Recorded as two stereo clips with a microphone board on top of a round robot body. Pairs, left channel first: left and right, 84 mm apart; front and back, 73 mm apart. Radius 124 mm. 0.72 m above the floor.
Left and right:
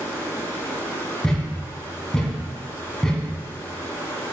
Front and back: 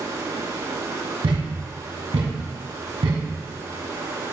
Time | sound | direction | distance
0.0 | running water | 145° left | 4.5 m
1.2 | a thud | 170° left | 2 m